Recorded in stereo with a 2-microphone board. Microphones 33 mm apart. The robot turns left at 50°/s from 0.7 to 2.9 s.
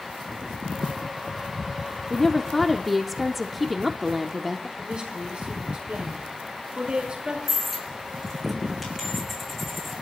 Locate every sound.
2.1 s a woman speaking: 15° left (ahead or behind), 0.7 m; by 4.7 s centre (ahead or behind), 0.7 m
4.8 s a woman speaking: 35° right (ahead or behind), 4.5 m
7.5 s a dropped coin: centre (ahead or behind), 4.5 m